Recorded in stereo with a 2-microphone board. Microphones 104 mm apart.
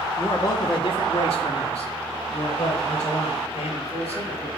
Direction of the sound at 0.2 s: 25° left (ahead or behind).